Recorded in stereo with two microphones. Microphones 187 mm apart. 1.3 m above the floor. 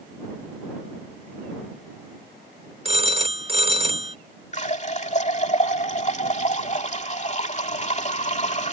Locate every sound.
2.9 s a phone ringing: 35° right (ahead or behind)
4.5 s a running tap: 40° left (ahead or behind)